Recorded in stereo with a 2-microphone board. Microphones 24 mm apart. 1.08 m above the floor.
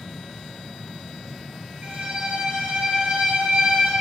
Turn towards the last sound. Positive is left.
turn(degrees=-55)  # may be behind; listen again after turning